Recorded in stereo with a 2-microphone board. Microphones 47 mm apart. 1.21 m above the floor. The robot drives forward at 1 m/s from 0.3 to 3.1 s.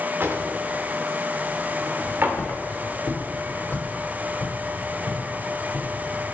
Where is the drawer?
55° right (ahead or behind), 1.7 m; by 2.4 s 45° right (ahead or behind), 1.9 m.